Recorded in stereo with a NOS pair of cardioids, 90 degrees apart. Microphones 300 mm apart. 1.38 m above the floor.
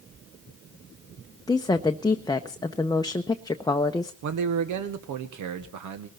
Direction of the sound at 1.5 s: 15° left.